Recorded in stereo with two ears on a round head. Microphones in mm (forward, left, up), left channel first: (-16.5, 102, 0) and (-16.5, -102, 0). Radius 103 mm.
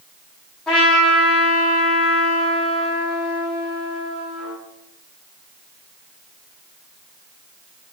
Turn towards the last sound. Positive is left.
turn(degrees=5)  # may be behind; listen again after turning